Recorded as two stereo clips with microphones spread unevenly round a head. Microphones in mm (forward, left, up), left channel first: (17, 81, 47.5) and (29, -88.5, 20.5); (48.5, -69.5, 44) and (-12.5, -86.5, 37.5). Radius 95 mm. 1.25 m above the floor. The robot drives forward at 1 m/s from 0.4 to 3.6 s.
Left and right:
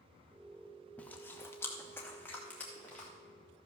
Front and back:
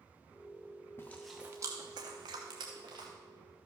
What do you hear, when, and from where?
1.0 s chewing: 30° left, 0.6 m; by 3.1 s 175° left, 1.9 m